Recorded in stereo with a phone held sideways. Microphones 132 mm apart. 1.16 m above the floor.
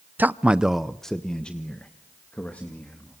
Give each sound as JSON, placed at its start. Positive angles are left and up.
{"t": 0.2, "sound": "a man speaking", "side_deg": -15, "distance_m": 0.6}